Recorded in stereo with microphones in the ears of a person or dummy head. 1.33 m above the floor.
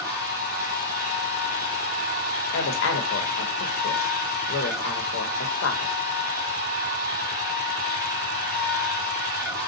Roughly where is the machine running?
Centre.